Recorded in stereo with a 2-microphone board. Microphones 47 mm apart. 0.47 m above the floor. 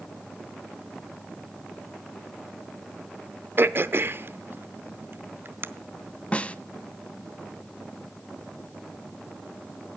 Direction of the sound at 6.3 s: 25° left (ahead or behind).